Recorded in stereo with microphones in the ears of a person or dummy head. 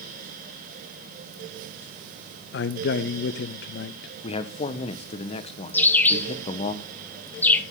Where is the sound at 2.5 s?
55° left (ahead or behind), 0.6 m.